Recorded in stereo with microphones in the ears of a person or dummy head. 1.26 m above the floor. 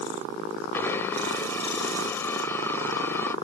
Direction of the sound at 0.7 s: 15° left (ahead or behind).